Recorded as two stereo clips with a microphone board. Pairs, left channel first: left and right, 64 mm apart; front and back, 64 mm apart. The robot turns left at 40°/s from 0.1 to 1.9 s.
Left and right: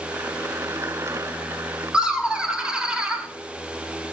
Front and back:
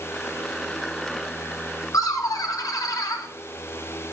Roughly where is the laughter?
Ahead.